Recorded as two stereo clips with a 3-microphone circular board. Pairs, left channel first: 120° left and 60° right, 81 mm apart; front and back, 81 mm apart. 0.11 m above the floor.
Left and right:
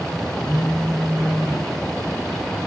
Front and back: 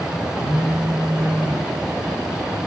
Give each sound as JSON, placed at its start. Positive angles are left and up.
{"t": 0.4, "sound": "a phone buzzing", "azimuth_deg": -165, "distance_m": 3.0}